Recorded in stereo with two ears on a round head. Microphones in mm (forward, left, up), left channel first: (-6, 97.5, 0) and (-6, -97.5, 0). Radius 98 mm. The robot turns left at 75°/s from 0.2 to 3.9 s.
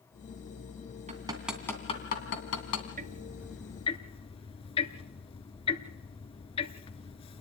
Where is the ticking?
40° right (ahead or behind), 0.9 m; by 7.4 s 25° left (ahead or behind), 0.9 m.